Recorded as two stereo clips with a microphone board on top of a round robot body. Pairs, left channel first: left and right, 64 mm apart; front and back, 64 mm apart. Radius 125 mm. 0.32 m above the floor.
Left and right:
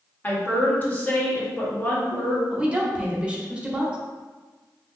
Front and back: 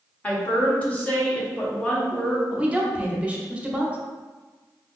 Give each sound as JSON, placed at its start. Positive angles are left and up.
{"t": 0.2, "sound": "a woman speaking", "azimuth_deg": 50, "distance_m": 1.2}
{"t": 2.5, "sound": "a woman speaking", "azimuth_deg": -140, "distance_m": 0.8}